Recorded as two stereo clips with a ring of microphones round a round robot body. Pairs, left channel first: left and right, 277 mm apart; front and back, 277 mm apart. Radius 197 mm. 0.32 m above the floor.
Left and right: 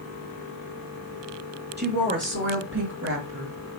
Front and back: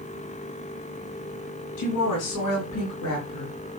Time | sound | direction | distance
1.8 | a woman speaking | 35° right | 3.5 m